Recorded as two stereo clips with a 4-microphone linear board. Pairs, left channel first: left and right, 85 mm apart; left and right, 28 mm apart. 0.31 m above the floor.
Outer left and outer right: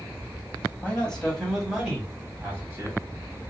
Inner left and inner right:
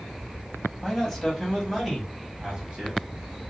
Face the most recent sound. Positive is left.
turn(degrees=-30)  # may be behind; listen again after turning